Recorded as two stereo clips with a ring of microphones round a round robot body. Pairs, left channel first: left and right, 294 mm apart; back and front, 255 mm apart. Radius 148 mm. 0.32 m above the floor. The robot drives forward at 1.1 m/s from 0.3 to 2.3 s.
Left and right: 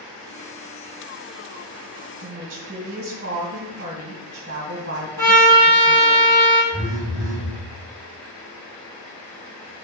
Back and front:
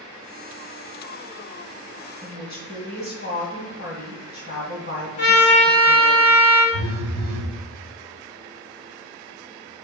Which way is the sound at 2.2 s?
140° right.